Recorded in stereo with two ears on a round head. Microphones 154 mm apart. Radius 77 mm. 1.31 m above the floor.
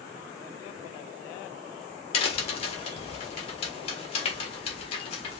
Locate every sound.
2.1 s a crack: 35° left (ahead or behind), 1.5 m